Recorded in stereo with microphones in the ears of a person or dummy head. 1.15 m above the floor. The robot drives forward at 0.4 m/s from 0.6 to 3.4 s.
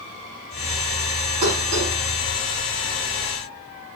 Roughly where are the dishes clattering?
Right.